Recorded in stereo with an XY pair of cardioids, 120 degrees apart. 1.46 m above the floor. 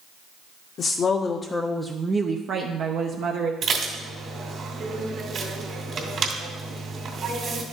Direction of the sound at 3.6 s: 50° right.